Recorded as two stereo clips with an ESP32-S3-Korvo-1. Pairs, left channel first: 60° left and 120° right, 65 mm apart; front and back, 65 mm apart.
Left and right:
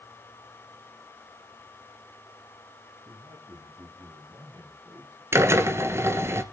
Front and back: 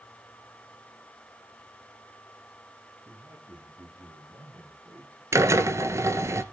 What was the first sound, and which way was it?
A man speaking, 135° right.